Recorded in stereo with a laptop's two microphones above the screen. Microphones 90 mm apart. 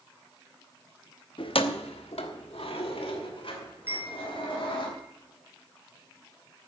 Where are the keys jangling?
60° left (ahead or behind), 0.9 m; by 4.9 s 65° left (ahead or behind), 3.5 m.